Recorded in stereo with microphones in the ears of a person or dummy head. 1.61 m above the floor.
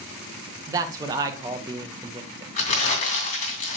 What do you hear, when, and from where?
0.7 s a man speaking: 25° right (ahead or behind), 0.9 m
2.6 s crumpling: 40° left (ahead or behind), 2.5 m